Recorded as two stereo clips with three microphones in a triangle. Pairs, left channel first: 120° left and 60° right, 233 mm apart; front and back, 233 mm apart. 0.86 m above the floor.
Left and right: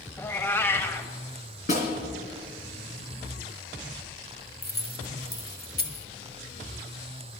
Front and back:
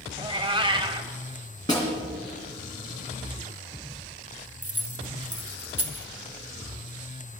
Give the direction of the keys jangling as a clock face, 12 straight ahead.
6 o'clock.